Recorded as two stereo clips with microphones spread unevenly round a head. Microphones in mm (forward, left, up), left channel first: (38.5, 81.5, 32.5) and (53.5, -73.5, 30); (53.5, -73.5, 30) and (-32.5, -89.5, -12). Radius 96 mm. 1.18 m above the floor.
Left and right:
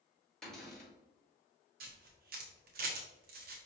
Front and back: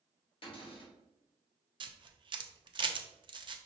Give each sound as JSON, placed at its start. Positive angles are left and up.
{"t": 0.4, "sound": "a cupboard door", "azimuth_deg": 10, "distance_m": 1.8}
{"t": 1.8, "sound": "a camera shutter", "azimuth_deg": -125, "distance_m": 0.6}